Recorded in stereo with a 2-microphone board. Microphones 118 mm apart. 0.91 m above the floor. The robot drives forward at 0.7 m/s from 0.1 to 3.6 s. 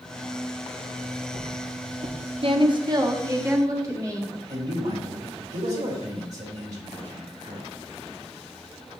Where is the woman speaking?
50° right (ahead or behind), 0.9 m; by 4.3 s 25° right (ahead or behind), 1.5 m.